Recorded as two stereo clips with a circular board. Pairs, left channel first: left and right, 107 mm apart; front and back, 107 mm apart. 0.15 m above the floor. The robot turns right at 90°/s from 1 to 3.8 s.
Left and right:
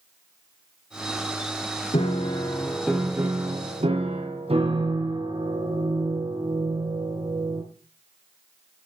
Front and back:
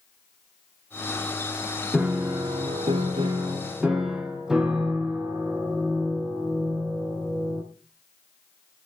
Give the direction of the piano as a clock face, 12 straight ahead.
9 o'clock.